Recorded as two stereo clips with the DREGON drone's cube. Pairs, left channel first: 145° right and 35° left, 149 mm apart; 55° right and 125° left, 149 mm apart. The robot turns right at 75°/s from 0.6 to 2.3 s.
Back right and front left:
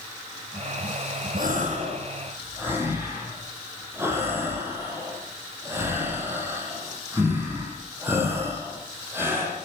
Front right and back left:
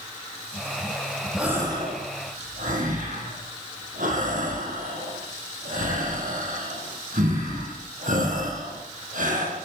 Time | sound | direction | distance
1.4 | a gasp | 40° left | 9.5 m